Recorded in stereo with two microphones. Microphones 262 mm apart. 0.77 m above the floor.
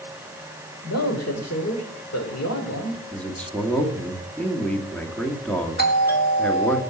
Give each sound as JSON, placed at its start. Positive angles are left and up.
{"t": 0.8, "sound": "a man speaking", "side_deg": 75, "distance_m": 2.5}
{"t": 3.1, "sound": "a man speaking", "side_deg": 5, "distance_m": 1.6}
{"t": 5.8, "sound": "a doorbell", "side_deg": 40, "distance_m": 1.7}